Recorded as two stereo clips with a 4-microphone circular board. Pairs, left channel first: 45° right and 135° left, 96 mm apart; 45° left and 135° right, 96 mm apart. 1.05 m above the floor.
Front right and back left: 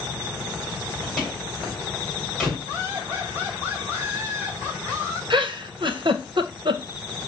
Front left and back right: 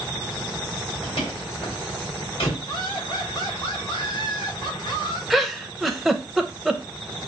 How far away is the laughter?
About 3 m.